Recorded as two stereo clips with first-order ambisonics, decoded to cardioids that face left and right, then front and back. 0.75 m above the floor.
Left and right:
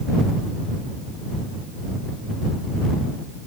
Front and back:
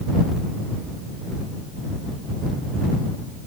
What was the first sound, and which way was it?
Only background noise.